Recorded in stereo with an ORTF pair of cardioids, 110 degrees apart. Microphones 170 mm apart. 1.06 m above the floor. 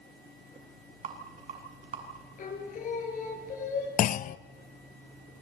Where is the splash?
No splash in this recording.